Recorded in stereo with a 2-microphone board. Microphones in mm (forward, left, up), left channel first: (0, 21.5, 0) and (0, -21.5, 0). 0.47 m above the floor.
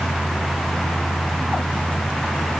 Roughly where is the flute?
I don't hear a flute.